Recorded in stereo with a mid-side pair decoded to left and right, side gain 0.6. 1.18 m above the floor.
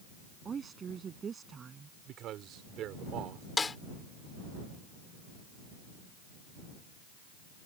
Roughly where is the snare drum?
Ahead.